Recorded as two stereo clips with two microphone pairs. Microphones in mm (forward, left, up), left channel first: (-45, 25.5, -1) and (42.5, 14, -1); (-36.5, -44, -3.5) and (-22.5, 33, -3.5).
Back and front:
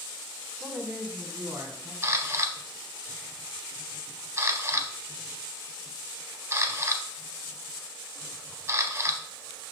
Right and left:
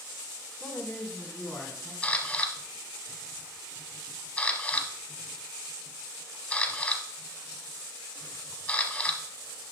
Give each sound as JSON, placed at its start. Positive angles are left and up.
{"t": 0.6, "sound": "a man speaking", "azimuth_deg": -75, "distance_m": 1.7}
{"t": 2.0, "sound": "a camera shutter", "azimuth_deg": -40, "distance_m": 0.8}